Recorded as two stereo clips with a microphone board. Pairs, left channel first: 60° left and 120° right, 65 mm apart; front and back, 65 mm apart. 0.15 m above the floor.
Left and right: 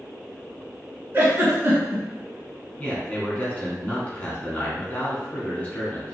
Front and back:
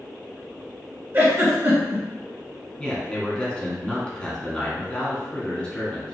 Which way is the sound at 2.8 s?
45° left.